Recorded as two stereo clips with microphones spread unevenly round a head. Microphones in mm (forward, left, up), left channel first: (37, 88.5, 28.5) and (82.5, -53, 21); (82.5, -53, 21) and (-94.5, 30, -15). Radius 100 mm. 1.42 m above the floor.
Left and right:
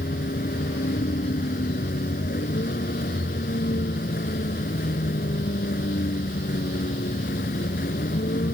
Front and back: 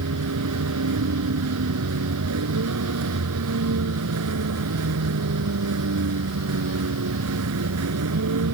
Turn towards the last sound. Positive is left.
turn(degrees=160)